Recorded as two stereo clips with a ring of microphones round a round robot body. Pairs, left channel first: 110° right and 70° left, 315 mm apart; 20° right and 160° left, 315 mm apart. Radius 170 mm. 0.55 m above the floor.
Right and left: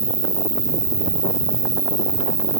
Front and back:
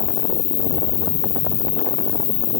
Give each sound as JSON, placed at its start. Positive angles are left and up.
{"t": 0.0, "sound": "an insect", "azimuth_deg": -10}